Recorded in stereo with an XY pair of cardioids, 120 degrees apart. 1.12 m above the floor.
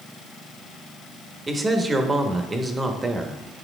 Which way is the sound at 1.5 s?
25° right.